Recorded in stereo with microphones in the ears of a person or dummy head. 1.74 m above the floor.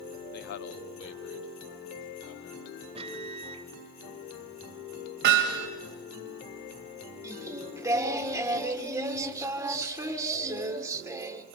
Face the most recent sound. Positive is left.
turn(degrees=-15)  # may be behind; listen again after turning